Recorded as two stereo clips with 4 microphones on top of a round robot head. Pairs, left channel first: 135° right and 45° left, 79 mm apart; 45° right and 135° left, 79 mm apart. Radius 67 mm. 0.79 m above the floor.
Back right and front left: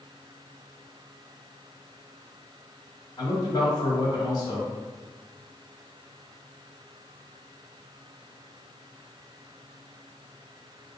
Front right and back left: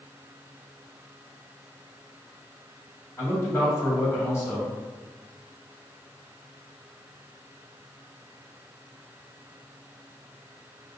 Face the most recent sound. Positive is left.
turn(degrees=-100)